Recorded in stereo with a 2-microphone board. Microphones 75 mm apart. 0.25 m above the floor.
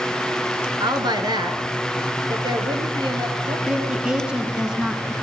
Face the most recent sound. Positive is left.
turn(degrees=-10)  # may be behind; listen again after turning